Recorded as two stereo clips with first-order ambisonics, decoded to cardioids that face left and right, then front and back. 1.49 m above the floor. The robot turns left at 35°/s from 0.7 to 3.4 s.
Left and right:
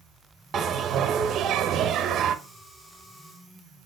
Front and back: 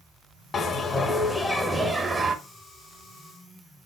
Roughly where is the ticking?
No ticking in this recording.